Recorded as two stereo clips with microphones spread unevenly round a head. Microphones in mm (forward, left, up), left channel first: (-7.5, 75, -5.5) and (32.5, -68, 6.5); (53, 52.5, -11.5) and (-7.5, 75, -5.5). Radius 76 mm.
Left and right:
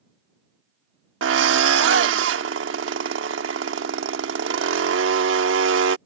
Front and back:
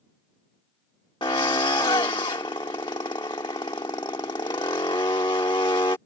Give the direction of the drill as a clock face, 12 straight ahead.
2 o'clock.